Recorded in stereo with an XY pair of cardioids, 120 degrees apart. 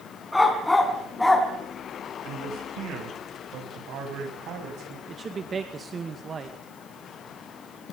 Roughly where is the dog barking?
Ahead.